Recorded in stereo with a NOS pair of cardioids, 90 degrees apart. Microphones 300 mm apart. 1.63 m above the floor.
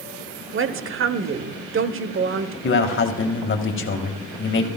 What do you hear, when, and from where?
0.5 s a woman speaking: 45° right, 0.9 m
2.6 s a man speaking: 40° left, 1.9 m